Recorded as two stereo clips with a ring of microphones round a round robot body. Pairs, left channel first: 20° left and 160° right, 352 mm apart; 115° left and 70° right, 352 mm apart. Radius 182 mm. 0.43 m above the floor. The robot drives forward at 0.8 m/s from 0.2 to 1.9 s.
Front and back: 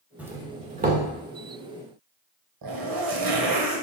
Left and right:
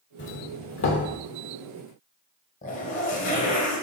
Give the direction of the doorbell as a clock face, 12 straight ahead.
8 o'clock.